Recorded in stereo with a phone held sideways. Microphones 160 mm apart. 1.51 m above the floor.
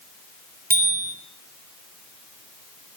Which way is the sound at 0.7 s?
75° right (ahead or behind).